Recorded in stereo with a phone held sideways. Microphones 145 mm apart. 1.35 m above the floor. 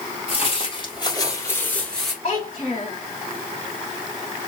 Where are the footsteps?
45° left (ahead or behind), 1.9 m; by 2.1 s centre (ahead or behind), 1.5 m.